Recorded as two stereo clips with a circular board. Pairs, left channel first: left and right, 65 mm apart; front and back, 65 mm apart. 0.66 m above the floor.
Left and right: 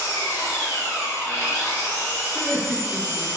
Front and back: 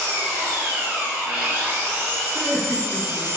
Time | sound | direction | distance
0.0 | an engine running | 115° left | 1.2 m
2.3 | laughter | 175° right | 1.6 m